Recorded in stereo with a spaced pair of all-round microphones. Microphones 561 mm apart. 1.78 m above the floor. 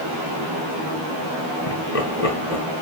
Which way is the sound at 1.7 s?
75° left (ahead or behind).